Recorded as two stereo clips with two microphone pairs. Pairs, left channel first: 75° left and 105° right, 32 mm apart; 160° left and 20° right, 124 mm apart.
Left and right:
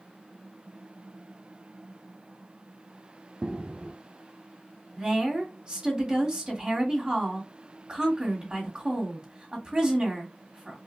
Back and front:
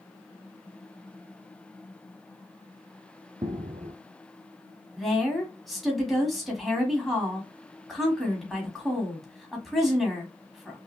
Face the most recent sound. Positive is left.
turn(degrees=-110)